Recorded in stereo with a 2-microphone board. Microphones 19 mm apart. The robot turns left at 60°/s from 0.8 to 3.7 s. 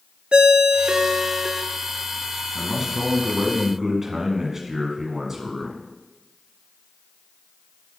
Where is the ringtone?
110° right, 0.8 m; by 1.6 s 160° right, 0.8 m.